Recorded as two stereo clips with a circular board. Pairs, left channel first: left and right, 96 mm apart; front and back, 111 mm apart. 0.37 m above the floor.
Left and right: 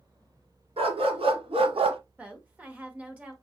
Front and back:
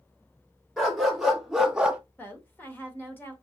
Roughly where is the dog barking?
Right.